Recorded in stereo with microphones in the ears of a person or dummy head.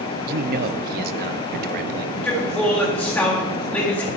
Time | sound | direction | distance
0.3 | a man speaking | 50° right (ahead or behind) | 0.7 m
2.1 | a man speaking | 10° left (ahead or behind) | 2.5 m